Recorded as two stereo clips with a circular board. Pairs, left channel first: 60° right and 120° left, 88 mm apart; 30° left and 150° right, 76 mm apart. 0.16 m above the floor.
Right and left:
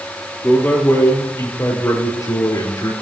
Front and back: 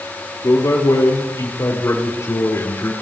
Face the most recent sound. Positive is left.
turn(degrees=-25)